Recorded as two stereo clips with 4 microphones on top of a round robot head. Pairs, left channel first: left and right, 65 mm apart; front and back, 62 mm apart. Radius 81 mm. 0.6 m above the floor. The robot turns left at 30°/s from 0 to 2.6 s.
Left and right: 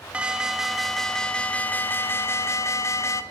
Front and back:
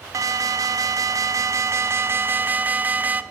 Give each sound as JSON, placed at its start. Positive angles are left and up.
{"t": 0.1, "sound": "an alarm", "azimuth_deg": -165, "distance_m": 0.8}